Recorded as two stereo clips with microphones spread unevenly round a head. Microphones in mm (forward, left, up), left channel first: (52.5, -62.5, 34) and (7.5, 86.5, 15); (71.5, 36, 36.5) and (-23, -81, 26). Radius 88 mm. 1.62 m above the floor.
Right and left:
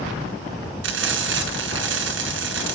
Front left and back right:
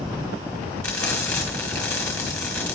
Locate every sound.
0.8 s frying: 135° left, 3.5 m